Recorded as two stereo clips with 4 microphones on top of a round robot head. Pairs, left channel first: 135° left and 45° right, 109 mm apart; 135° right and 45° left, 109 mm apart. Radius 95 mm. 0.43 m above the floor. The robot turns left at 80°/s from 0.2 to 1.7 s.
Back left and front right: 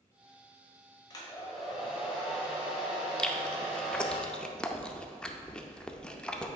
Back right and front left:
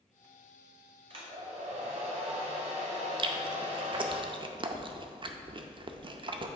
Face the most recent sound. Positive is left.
turn(degrees=55)